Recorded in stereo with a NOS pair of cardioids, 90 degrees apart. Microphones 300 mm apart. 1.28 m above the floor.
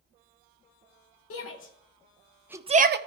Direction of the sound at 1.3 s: 55° left.